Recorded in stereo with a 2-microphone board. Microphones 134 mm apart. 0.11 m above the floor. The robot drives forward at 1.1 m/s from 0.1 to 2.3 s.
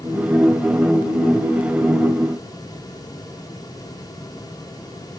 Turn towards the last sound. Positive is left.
No sound to turn to.